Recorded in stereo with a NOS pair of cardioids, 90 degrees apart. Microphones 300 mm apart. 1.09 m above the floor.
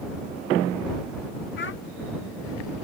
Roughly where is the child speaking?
Ahead left.